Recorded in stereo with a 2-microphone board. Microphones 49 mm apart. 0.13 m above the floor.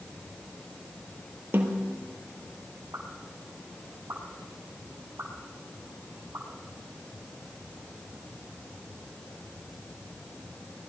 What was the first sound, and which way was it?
A snare drum, 50° right (ahead or behind).